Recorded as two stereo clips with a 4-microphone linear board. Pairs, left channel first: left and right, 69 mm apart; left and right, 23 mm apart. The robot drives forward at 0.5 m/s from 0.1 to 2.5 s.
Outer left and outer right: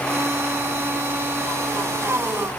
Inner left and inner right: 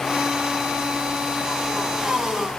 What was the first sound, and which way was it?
Only background noise.